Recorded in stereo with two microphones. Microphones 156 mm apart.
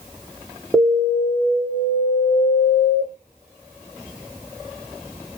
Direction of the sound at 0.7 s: Centre (ahead or behind).